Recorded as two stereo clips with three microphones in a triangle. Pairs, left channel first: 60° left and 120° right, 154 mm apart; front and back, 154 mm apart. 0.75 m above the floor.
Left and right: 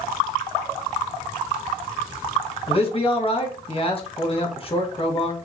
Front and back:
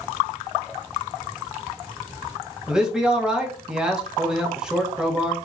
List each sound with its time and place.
2.7 s a man speaking: 95° left, 1.1 m